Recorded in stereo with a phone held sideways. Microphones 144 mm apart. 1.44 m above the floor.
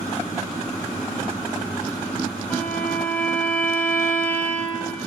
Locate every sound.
2.5 s a violin: 10° left (ahead or behind), 1.9 m